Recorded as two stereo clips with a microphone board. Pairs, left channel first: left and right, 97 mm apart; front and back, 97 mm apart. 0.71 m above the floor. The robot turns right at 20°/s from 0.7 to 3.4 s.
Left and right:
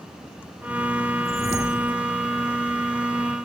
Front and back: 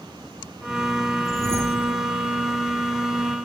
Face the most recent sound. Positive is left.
turn(degrees=-140)